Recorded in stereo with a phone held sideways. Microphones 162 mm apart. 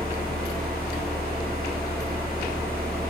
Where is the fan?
70° right (ahead or behind), 1.5 m.